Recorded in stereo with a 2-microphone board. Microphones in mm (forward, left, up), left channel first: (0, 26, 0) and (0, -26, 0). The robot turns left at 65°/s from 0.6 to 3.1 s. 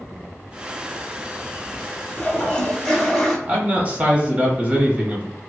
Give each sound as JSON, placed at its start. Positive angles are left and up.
{"t": 2.2, "sound": "a toilet flushing", "side_deg": 20, "distance_m": 1.0}
{"t": 3.5, "sound": "a man speaking", "side_deg": -25, "distance_m": 1.0}